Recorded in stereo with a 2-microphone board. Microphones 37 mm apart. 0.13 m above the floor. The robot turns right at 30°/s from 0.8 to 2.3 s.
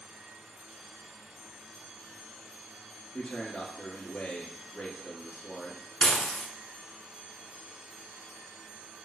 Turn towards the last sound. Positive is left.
turn(degrees=25)  # may be behind; listen again after turning